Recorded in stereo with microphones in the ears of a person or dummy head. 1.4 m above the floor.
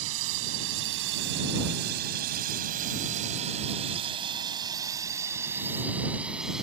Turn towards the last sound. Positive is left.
turn(degrees=-5)  # may be behind; listen again after turning